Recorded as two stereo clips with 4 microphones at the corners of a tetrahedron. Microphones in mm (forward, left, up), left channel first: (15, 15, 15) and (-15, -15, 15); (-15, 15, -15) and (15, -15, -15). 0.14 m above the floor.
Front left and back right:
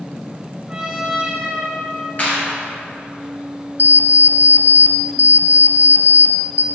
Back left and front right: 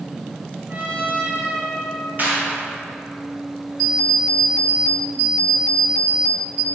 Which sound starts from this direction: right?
A trumpet, at 0.7 s.